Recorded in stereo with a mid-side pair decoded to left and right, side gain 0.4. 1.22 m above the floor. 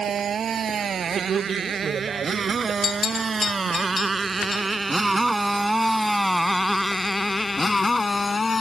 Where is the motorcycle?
60° right; by 8.6 s 30° left.